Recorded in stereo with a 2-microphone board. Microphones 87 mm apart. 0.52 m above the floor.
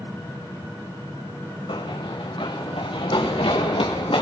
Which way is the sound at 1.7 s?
70° left (ahead or behind).